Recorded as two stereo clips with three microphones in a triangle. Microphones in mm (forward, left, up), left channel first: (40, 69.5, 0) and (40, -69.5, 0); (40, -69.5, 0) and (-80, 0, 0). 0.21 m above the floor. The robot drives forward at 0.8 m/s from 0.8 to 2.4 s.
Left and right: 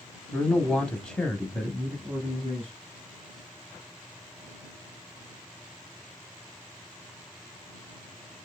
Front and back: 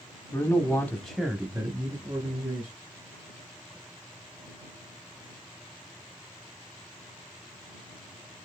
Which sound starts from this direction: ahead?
A man speaking, at 0.3 s.